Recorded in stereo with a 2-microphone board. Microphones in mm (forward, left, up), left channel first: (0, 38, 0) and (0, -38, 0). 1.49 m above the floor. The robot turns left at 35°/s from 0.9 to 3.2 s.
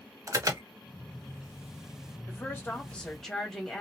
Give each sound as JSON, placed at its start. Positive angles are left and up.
{"t": 0.3, "sound": "an alarm", "side_deg": -45, "distance_m": 0.7}
{"t": 2.3, "sound": "a woman speaking", "azimuth_deg": 40, "distance_m": 1.5}